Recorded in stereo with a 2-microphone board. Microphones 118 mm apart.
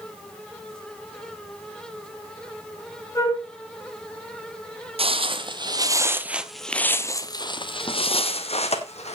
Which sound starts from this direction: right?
Footsteps, at 5.0 s.